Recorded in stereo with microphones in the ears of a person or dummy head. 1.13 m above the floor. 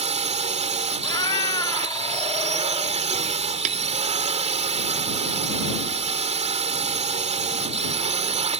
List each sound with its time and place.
0.0 s a drone: 35° right (ahead or behind)
1.0 s a cat meowing: 20° left (ahead or behind)
3.6 s tapping: 45° right (ahead or behind)